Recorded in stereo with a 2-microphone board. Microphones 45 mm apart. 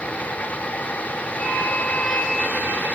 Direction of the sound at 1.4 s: 35° left (ahead or behind).